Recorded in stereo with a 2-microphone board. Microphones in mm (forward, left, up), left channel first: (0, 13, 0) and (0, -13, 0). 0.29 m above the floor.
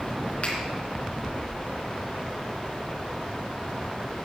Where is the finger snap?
55° left (ahead or behind), 3 m.